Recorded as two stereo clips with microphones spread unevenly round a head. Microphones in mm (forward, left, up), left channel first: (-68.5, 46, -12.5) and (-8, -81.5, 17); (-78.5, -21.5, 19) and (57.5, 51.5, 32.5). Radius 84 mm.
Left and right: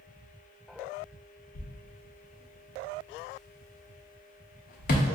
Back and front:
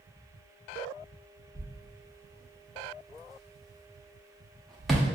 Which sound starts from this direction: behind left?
A thud, at 1.6 s.